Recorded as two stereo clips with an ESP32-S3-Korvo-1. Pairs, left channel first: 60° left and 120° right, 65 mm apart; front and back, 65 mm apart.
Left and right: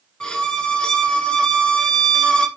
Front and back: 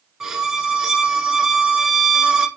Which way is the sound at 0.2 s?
115° left.